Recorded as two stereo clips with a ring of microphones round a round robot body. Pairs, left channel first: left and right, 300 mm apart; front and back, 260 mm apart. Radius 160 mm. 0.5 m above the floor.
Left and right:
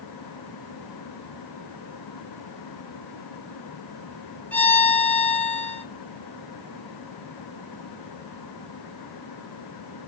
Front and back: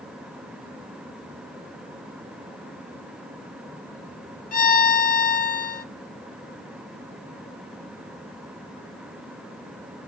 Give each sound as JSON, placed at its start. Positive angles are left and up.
{"t": 4.5, "sound": "a violin", "azimuth_deg": 10, "distance_m": 0.7}